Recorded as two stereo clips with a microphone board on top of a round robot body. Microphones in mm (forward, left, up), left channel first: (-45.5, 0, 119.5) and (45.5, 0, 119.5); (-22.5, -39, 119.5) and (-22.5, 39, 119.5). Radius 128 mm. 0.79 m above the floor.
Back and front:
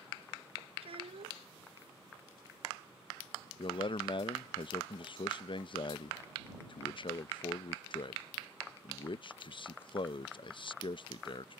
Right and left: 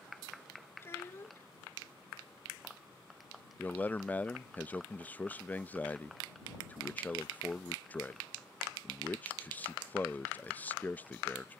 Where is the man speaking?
160° right.